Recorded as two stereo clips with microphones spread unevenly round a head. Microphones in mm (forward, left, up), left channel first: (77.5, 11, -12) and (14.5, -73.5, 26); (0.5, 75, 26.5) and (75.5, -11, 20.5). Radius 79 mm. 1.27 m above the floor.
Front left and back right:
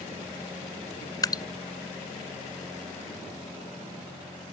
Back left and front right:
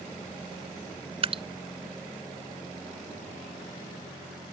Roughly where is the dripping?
Ahead.